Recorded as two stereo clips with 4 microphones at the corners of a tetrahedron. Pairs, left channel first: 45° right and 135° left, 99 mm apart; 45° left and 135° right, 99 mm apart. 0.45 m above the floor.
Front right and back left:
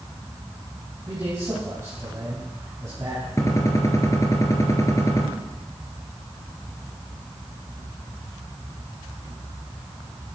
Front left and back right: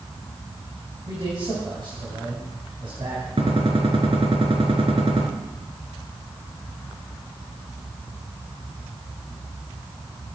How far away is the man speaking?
About 3.5 m.